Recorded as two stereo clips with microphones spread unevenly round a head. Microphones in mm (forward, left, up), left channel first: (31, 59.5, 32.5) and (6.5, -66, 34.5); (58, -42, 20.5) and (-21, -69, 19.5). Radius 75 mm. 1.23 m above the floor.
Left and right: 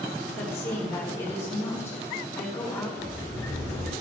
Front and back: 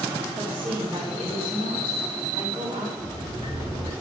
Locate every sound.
0.4 s a woman speaking: 150° left, 3.5 m
3.0 s a sliding door: 155° left, 6 m